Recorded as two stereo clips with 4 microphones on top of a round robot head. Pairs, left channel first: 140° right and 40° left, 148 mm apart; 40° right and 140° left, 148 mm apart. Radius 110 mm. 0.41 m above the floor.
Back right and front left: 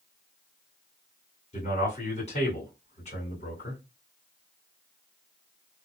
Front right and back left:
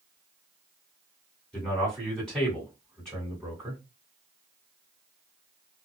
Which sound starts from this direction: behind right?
A man speaking, at 1.5 s.